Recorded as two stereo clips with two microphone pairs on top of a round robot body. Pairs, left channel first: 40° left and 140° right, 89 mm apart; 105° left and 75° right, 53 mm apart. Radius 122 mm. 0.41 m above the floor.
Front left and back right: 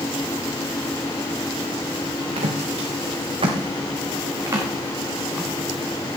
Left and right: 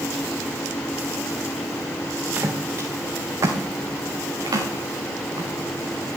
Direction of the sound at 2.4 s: 125° right.